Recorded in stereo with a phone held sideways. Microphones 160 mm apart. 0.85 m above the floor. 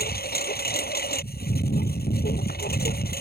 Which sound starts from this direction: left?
A lawn mower, at 0.0 s.